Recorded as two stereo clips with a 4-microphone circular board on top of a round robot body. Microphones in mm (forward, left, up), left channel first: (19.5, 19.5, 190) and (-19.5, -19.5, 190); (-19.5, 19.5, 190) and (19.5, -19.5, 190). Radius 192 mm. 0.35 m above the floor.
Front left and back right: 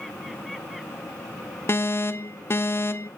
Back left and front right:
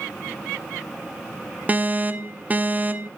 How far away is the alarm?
About 1.0 m.